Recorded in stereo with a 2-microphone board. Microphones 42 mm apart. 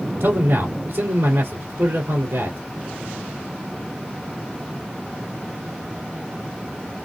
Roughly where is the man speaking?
Right.